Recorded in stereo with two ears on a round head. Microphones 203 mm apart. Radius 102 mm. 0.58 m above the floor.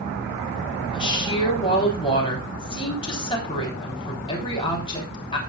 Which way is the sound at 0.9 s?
25° left (ahead or behind).